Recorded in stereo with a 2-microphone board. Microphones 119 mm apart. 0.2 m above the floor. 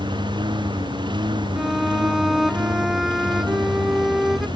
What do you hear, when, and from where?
0.0 s a lawn mower: 40° right (ahead or behind)
1.6 s a violin: centre (ahead or behind)